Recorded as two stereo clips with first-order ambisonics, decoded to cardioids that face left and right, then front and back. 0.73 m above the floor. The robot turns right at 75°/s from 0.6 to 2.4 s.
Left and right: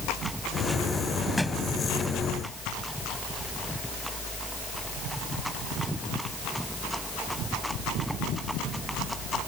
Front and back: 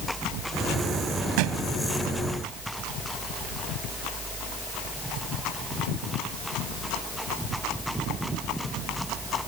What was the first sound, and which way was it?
A thud, 175° left.